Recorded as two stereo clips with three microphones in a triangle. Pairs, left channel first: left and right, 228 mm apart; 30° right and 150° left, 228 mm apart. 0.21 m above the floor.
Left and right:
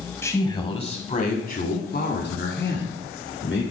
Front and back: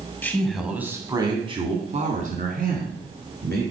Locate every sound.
0.2 s a man speaking: 35° left, 1.3 m; by 3.6 s 115° left, 3 m